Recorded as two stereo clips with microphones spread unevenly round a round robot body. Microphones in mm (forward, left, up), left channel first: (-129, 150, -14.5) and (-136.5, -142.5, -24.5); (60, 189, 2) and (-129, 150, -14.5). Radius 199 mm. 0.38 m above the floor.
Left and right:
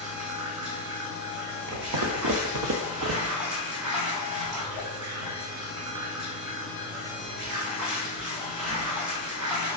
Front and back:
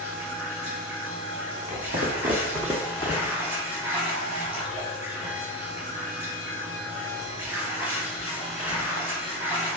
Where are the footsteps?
115° right, 1.2 m; by 3.4 s 30° right, 0.7 m.